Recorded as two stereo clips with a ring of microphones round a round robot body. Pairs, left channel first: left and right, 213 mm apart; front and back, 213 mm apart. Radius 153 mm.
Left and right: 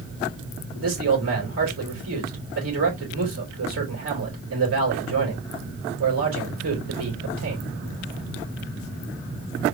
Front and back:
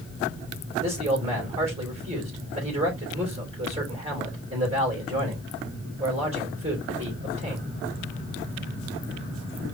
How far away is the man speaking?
About 3.5 m.